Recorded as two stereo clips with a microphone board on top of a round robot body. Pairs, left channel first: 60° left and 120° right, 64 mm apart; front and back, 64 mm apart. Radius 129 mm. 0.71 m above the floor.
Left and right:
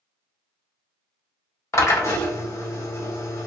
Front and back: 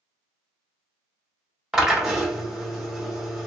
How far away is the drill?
About 1.6 m.